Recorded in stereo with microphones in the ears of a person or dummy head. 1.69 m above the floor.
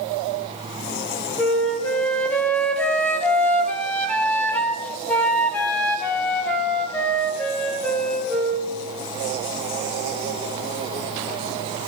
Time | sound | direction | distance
1.4 | a flute | 5° left (ahead or behind) | 1.7 m